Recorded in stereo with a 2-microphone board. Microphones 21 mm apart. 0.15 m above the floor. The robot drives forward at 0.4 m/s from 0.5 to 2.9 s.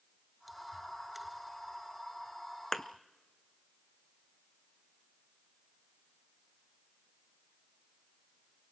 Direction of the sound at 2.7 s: 15° left (ahead or behind).